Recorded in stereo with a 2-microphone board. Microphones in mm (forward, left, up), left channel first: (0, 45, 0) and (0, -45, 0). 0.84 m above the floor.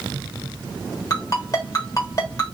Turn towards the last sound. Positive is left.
turn(degrees=40)  # may be behind; listen again after turning